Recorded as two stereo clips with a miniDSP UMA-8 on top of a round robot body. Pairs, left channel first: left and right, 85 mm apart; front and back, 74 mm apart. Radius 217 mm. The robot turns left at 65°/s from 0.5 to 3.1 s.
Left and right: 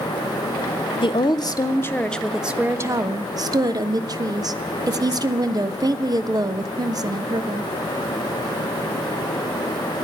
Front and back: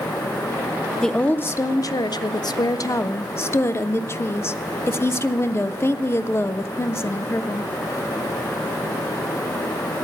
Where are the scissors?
I don't hear scissors.